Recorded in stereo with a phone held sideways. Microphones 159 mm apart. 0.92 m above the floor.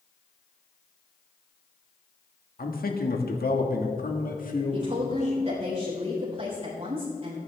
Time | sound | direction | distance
2.6 | a man speaking | 65° left (ahead or behind) | 1.6 m
4.7 | a woman speaking | 40° right (ahead or behind) | 3.5 m